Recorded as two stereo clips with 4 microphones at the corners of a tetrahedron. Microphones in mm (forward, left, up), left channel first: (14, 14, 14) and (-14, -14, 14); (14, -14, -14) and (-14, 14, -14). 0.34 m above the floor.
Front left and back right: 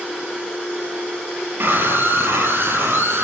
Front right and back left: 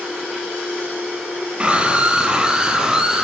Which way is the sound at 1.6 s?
160° right.